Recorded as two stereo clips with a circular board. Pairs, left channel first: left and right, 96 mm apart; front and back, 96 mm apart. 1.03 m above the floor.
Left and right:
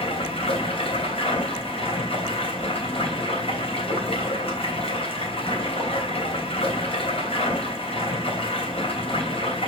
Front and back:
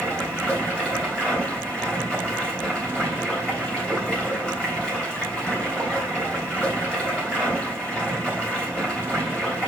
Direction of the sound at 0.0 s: 80° left.